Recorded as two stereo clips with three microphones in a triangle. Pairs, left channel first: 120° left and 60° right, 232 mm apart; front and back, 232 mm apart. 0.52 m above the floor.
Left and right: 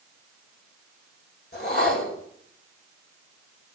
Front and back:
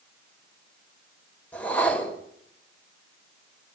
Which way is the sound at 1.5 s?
80° left.